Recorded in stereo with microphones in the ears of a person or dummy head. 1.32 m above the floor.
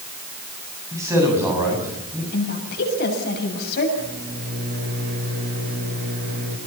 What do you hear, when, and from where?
0.9 s a man speaking: 15° right (ahead or behind), 8.5 m
2.3 s a woman speaking: 60° left (ahead or behind), 7.5 m
4.0 s a microwave: 50° right (ahead or behind), 6 m